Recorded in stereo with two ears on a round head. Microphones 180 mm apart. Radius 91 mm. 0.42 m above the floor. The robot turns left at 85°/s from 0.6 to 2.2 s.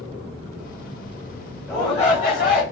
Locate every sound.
1.7 s a shout: 170° left, 1.6 m; by 2.6 s 125° left, 1.6 m